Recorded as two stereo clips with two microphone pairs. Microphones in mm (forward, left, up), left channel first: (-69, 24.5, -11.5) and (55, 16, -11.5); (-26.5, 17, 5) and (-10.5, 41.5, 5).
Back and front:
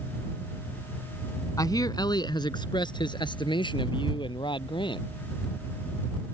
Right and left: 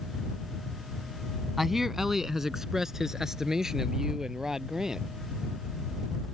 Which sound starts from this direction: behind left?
A man speaking, at 1.6 s.